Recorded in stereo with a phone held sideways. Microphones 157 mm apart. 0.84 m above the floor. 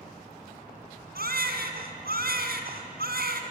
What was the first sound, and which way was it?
A baby crying, 80° right.